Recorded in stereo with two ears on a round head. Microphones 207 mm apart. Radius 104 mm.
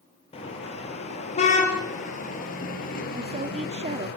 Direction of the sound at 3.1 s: 30° right (ahead or behind).